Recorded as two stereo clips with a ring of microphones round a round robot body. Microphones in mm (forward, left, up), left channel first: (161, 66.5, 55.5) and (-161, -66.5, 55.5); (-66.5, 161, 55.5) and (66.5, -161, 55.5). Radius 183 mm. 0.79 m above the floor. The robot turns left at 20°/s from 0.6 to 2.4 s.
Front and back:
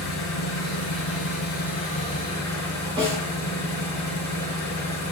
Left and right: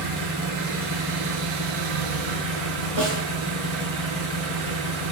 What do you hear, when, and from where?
0.0 s an engine running: 25° right, 4 m; by 5.1 s 60° right, 4 m
3.0 s a snare drum: 80° right, 5 m